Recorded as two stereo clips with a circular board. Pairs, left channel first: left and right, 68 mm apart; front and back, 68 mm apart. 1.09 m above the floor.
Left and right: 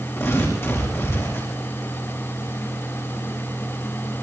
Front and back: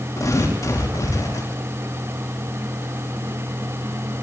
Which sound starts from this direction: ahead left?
Tearing paper, at 0.2 s.